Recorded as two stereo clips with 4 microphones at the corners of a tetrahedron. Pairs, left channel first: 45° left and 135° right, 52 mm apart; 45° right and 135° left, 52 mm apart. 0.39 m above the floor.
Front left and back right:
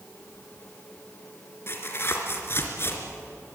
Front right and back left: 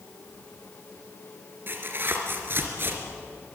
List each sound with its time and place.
1.7 s tearing paper: 90° left, 3 m